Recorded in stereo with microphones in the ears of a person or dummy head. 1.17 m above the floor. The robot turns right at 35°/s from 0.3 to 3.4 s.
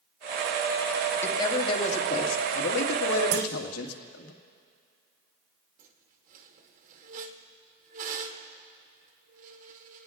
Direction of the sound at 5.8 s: 40° right (ahead or behind).